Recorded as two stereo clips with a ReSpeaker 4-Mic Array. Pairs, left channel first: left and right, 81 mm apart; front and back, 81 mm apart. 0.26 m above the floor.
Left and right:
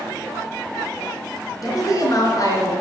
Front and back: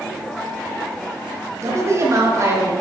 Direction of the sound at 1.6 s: 130° left.